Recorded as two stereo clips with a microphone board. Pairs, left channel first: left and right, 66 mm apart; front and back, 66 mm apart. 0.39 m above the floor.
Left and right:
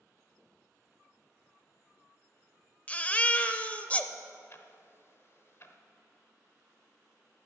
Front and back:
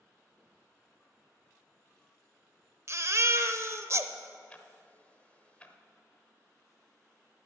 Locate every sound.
2.9 s a baby crying: 150° left, 0.5 m
4.5 s ticking: 65° left, 0.8 m